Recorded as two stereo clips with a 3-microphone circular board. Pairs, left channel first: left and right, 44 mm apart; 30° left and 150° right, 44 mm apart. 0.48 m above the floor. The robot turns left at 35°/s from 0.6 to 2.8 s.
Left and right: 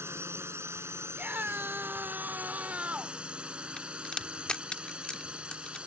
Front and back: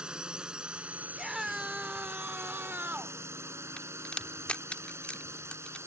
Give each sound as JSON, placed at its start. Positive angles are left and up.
{"t": 0.0, "sound": "a drone", "azimuth_deg": -80}
{"t": 1.1, "sound": "a scream", "azimuth_deg": -70}
{"t": 3.8, "sound": "a crack", "azimuth_deg": 50}